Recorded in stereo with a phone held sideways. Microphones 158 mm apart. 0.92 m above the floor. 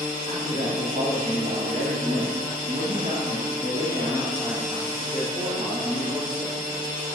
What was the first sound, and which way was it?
A man speaking, 70° right (ahead or behind).